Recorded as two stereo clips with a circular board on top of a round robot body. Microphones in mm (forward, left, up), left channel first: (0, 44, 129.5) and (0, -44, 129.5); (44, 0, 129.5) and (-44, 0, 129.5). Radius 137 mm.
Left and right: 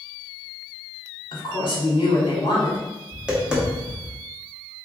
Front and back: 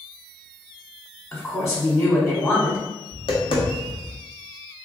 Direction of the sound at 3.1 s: 10° right.